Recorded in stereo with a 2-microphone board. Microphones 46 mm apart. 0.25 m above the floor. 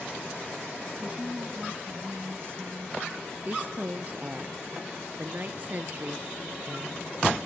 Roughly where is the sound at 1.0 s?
Centre.